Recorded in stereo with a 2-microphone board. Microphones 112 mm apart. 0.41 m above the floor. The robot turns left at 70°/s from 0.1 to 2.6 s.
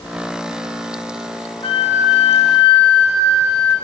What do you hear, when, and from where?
1.6 s a flute: 130° left, 4.5 m; by 3.8 s 60° left, 4.5 m